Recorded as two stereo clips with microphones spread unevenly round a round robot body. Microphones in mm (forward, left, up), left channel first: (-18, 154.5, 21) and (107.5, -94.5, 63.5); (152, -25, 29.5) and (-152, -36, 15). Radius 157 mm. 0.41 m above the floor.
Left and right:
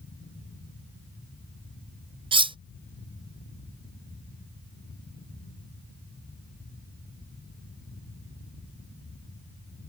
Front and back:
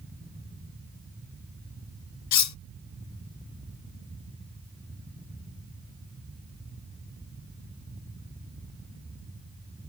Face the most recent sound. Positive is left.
turn(degrees=15)